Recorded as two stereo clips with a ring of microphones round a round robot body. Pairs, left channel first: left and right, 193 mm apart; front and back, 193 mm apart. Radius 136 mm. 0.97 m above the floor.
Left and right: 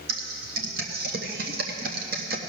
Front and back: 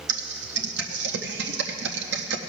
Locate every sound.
0.1 s typing on a keyboard: 145° right, 0.5 m